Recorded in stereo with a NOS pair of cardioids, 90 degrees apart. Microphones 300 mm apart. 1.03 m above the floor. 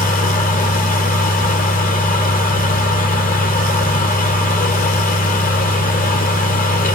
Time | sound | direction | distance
0.0 | a fan | 30° left | 0.9 m